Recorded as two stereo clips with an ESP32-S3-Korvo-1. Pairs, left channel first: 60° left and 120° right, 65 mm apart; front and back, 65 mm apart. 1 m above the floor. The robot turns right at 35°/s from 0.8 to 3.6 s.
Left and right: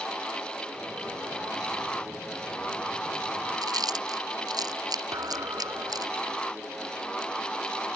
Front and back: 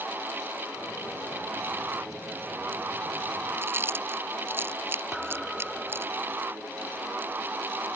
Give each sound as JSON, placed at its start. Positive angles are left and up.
{"t": 3.6, "sound": "chewing", "azimuth_deg": -125}
{"t": 5.1, "sound": "a thud", "azimuth_deg": -95}